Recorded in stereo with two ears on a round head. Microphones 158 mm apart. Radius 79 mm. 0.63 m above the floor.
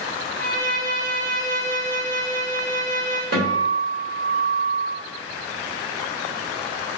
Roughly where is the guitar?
Right.